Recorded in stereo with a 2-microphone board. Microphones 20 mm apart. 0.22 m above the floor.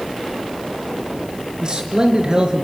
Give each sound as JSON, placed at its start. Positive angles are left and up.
{"t": 1.6, "sound": "a man speaking", "side_deg": -40, "distance_m": 3.5}